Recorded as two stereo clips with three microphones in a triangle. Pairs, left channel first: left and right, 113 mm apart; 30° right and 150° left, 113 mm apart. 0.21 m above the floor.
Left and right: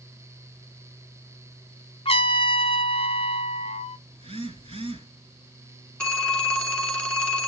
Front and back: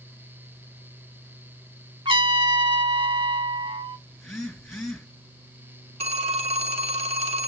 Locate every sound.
2.0 s a trumpet: 115° left, 0.8 m
4.1 s a phone buzzing: 120° right, 3.5 m
6.0 s a phone ringing: 170° left, 1.5 m